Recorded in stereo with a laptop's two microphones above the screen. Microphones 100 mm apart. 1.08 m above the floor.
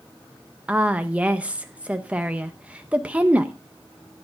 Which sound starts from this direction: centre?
A woman speaking, at 0.7 s.